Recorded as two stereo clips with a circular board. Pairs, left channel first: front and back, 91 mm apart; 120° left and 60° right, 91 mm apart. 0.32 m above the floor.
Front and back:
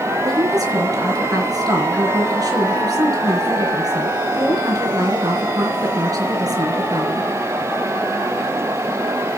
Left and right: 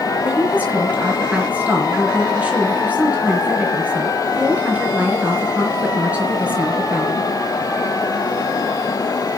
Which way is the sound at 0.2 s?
135° right.